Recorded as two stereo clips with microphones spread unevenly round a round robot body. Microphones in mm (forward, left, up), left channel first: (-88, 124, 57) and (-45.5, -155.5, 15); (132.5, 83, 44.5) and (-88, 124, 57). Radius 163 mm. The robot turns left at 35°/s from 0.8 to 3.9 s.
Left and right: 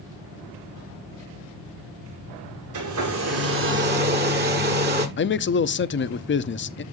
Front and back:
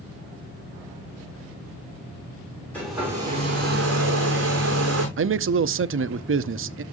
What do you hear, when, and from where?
2.7 s a hair dryer: 95° right, 7 m; by 5.1 s 135° right, 7 m
5.2 s a man speaking: 150° left, 0.9 m